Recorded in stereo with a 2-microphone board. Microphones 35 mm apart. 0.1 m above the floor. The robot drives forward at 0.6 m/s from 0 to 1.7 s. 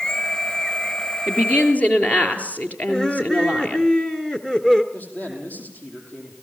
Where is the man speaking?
60° left (ahead or behind), 4.5 m.